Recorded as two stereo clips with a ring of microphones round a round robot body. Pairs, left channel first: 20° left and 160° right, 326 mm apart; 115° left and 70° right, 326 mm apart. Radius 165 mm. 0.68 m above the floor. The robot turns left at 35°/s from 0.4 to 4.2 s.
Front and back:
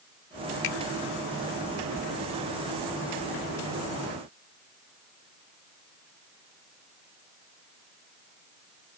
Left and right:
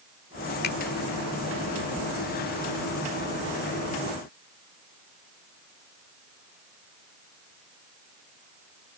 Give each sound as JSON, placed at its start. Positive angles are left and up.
{"t": 0.6, "sound": "a finger snap", "azimuth_deg": 55}